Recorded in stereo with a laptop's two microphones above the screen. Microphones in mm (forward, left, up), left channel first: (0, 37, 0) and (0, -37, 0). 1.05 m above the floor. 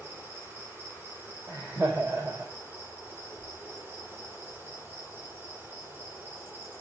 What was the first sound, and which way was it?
An insect, 30° right (ahead or behind).